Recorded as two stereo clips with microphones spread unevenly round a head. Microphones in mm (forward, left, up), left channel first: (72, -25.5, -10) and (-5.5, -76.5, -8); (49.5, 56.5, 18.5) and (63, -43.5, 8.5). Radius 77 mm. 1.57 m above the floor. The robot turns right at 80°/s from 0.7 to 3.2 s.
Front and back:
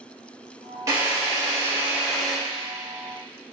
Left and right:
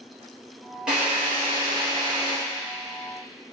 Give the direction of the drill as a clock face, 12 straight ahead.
6 o'clock.